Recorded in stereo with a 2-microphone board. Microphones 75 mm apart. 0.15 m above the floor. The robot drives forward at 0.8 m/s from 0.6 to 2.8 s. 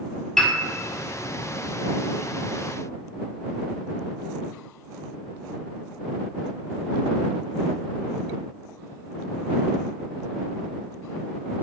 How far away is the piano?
About 1.5 m.